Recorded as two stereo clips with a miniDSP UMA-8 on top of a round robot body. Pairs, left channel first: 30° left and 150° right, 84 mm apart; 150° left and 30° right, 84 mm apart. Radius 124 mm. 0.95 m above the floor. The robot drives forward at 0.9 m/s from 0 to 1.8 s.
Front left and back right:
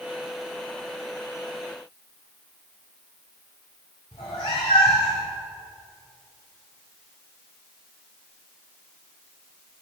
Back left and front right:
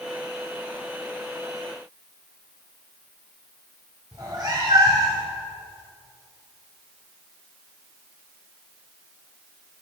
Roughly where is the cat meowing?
Ahead.